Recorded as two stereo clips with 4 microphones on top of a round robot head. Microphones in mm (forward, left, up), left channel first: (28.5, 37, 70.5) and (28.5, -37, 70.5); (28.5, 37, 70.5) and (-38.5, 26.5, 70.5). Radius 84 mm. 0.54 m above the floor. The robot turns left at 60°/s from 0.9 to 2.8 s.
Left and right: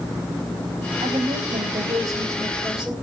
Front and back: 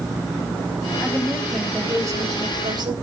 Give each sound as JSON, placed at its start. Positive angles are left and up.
{"t": 1.0, "sound": "a woman speaking", "azimuth_deg": -65, "distance_m": 2.5}